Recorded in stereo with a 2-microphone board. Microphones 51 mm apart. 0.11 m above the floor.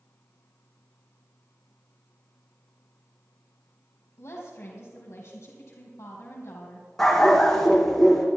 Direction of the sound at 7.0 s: 5° left (ahead or behind).